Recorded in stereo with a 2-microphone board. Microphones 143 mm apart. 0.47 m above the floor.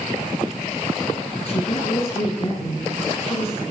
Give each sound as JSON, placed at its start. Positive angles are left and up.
{"t": 1.4, "sound": "a woman speaking", "side_deg": 40, "distance_m": 7.0}